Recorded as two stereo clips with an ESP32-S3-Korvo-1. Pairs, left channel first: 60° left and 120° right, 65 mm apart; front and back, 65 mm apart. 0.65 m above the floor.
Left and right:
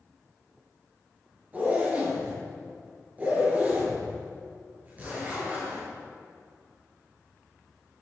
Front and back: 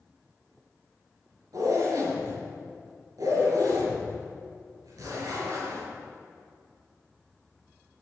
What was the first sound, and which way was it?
A zipper, straight behind.